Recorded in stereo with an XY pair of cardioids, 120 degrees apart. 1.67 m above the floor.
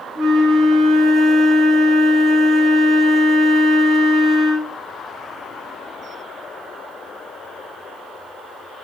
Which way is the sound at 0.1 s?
70° right.